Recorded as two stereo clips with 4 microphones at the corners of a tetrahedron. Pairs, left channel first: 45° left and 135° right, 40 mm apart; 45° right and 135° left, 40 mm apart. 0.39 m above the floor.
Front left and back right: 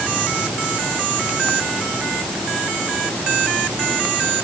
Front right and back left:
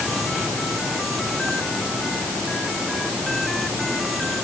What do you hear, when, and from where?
Only background noise.